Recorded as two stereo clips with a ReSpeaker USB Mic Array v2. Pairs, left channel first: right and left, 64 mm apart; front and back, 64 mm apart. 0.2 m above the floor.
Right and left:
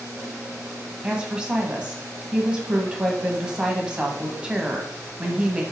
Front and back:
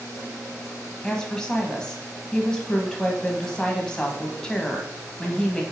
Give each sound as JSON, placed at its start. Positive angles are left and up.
{"t": 1.0, "sound": "a woman speaking", "azimuth_deg": 50, "distance_m": 1.3}